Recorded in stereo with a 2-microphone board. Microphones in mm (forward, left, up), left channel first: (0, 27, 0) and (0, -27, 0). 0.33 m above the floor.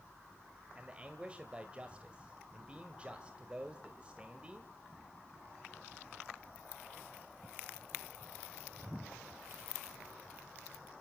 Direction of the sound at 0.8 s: 20° right (ahead or behind).